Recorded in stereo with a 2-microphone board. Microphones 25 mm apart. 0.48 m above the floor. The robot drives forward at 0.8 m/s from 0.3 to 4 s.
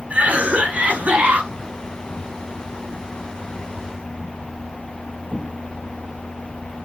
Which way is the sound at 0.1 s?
70° right (ahead or behind).